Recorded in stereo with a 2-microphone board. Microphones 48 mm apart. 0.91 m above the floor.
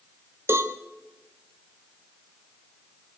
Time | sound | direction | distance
0.5 | a cowbell | 65° right (ahead or behind) | 1.1 m